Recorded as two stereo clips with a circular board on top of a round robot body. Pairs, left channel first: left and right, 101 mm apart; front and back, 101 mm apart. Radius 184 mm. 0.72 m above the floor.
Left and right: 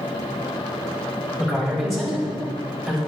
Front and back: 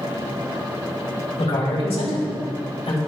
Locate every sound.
1.4 s a man speaking: straight ahead, 4.5 m